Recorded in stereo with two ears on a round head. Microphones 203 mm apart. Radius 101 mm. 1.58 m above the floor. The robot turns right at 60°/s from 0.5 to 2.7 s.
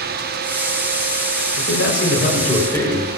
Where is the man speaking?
100° left, 6 m; by 3.1 s 170° left, 6 m.